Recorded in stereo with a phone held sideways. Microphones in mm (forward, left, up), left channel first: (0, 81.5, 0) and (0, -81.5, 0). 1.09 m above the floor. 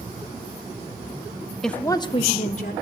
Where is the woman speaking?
Centre (ahead or behind), 0.5 m; by 2.7 s 55° left (ahead or behind), 0.9 m.